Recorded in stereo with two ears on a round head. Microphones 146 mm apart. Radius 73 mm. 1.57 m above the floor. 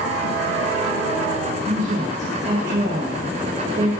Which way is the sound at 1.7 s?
50° right (ahead or behind).